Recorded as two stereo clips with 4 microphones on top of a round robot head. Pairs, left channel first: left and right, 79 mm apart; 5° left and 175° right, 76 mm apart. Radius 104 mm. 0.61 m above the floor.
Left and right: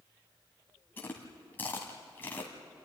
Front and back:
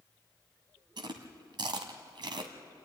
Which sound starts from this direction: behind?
Chewing, at 1.0 s.